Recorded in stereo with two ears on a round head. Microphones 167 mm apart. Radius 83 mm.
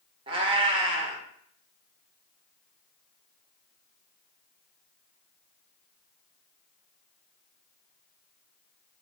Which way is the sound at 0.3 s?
25° right (ahead or behind).